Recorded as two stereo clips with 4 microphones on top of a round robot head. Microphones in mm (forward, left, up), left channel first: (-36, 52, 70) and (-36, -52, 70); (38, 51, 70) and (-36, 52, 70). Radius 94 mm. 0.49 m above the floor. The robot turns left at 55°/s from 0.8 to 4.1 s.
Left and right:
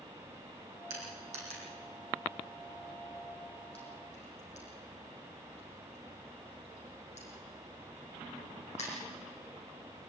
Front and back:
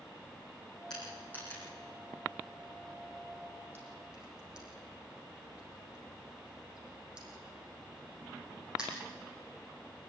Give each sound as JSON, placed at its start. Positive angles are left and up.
{"t": 0.9, "sound": "crushing", "azimuth_deg": -85, "distance_m": 8.0}